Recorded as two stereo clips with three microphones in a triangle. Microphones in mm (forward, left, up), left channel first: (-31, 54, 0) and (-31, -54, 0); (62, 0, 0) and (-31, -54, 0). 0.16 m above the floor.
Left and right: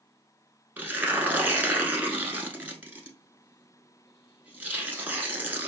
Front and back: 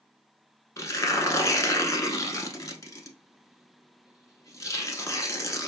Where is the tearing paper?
20° right, 0.7 m.